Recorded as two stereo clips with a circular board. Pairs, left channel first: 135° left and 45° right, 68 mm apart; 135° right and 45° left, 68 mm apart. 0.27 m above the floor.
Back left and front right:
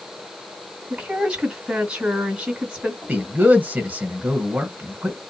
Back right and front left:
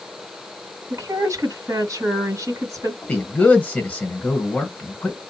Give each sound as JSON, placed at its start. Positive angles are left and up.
{"t": 0.9, "sound": "a woman speaking", "azimuth_deg": 25, "distance_m": 2.0}
{"t": 3.0, "sound": "a man speaking", "azimuth_deg": -85, "distance_m": 1.0}